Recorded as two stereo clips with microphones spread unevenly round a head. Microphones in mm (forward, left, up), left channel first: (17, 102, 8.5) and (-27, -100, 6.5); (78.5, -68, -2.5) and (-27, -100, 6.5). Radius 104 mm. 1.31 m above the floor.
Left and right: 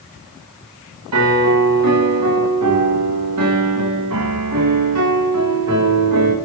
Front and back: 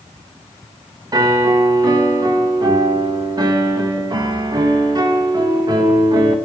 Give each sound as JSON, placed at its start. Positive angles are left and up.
{"t": 1.1, "sound": "a piano", "azimuth_deg": -110, "distance_m": 1.7}